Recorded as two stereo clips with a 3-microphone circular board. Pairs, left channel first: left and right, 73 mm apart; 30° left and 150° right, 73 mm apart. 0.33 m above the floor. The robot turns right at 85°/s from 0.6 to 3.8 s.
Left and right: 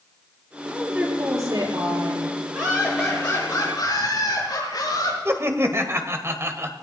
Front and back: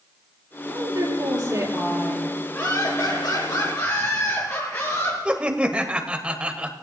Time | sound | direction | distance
0.7 | a woman speaking | 165° left | 7 m
2.5 | laughter | 40° right | 6 m
5.2 | laughter | 85° right | 1.3 m